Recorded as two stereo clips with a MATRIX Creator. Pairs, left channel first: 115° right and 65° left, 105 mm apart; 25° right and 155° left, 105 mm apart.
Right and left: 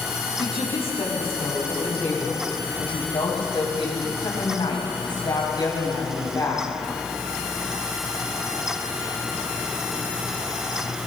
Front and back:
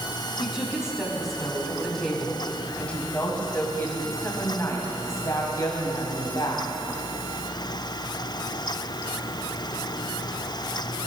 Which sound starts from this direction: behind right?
A woman speaking, at 0.4 s.